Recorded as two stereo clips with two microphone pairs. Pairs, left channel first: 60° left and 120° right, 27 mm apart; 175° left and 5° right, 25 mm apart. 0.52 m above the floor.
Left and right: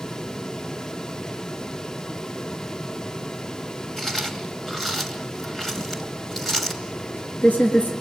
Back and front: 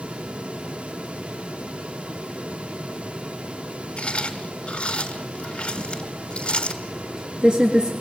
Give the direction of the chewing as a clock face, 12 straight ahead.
7 o'clock.